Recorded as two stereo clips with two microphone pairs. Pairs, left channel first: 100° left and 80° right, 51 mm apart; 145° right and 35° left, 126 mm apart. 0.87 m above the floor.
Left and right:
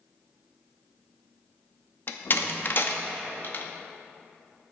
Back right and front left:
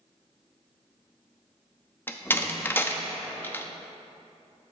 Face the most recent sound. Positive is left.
turn(degrees=140)